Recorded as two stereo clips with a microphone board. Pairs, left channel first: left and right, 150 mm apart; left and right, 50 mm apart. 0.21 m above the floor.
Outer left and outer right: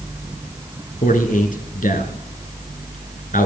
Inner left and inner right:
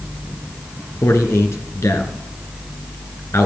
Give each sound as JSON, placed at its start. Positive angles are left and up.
{"t": 1.0, "sound": "a man speaking", "side_deg": 65, "distance_m": 2.5}